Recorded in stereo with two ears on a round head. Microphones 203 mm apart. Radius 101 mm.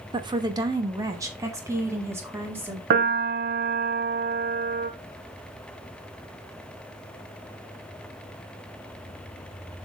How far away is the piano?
About 0.9 m.